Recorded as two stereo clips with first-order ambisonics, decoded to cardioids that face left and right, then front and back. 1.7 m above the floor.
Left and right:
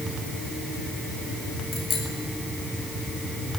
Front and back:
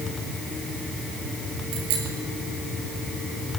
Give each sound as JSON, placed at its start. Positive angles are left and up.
{"t": 1.7, "sound": "a bicycle bell", "azimuth_deg": 150, "distance_m": 7.5}